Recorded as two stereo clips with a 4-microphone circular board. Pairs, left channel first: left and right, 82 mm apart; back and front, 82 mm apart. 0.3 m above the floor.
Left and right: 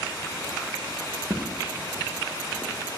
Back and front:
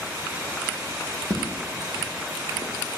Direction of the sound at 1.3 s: 40° right.